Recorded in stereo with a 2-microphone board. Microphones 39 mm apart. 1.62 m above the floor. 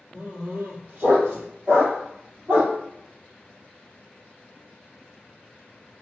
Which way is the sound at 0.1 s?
55° right (ahead or behind).